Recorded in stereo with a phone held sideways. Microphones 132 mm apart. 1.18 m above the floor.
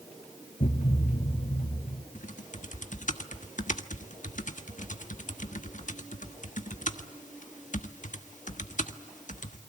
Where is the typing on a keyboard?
70° left (ahead or behind), 1.2 m.